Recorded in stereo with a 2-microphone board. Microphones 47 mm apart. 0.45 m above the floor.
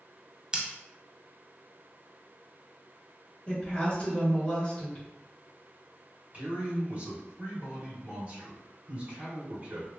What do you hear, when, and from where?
0.5 s scissors: 20° right (ahead or behind), 0.7 m
3.5 s a woman speaking: 25° left (ahead or behind), 1.3 m
6.3 s a man speaking: 35° right (ahead or behind), 1.7 m